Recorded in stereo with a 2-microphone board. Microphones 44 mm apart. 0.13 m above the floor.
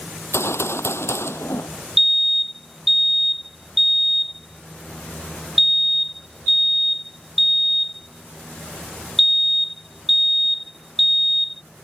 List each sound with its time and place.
0.3 s a gunshot: 75° left (ahead or behind)
2.0 s a fire alarm: centre (ahead or behind)